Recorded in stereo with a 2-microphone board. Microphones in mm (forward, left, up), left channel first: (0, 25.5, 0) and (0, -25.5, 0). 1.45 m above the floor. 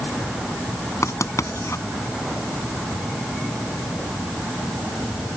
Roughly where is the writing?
Left.